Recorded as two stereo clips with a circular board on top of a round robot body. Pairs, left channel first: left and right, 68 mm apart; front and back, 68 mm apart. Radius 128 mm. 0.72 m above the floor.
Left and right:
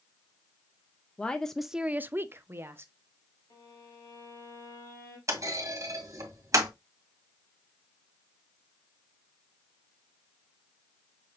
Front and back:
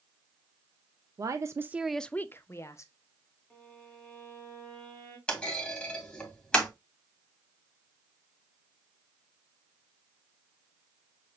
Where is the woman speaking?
160° left, 0.7 m; by 2.9 s 40° right, 1.1 m.